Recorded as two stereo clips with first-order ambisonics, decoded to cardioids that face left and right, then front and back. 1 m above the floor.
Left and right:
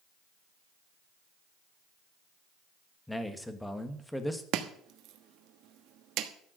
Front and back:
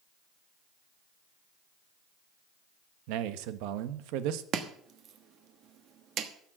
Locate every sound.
3.1 s a man speaking: 175° left, 1.1 m
4.5 s chopping: 130° right, 1.2 m